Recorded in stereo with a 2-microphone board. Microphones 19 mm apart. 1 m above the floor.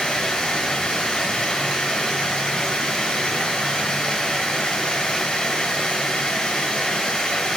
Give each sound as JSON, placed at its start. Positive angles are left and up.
{"t": 0.0, "sound": "running water", "side_deg": 55, "distance_m": 1.7}